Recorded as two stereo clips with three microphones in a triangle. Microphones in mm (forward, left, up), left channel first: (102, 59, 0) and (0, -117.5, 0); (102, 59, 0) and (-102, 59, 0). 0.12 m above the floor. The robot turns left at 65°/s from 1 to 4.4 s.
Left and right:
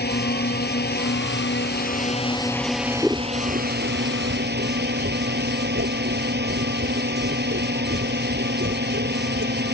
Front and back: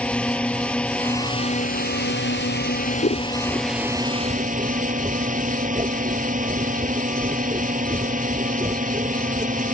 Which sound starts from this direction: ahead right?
Scissors, at 3.0 s.